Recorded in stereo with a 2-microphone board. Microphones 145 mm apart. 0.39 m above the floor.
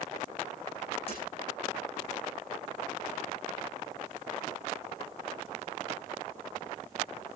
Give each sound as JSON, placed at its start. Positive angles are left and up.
{"t": 1.1, "sound": "breaking glass", "side_deg": 40, "distance_m": 8.5}